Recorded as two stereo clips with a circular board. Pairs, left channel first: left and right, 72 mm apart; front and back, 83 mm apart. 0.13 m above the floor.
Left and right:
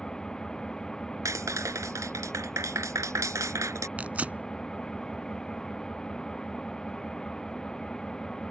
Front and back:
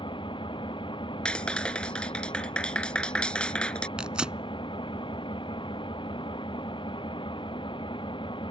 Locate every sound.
0.0 s an engine running: 10° left
1.2 s a clap: 75° right
4.0 s tearing paper: 120° right